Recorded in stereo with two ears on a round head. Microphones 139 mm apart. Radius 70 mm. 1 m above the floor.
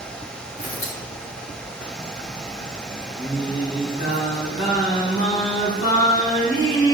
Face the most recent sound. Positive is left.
turn(degrees=55)  # may be behind; listen again after turning